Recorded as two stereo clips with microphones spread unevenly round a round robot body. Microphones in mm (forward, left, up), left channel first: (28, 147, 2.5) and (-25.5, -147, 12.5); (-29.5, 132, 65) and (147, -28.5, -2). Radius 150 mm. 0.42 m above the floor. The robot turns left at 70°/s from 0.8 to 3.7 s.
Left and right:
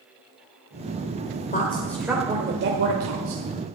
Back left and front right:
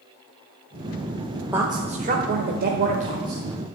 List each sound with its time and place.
1.5 s a woman speaking: 25° left, 1.3 m; by 3.4 s 110° right, 1.3 m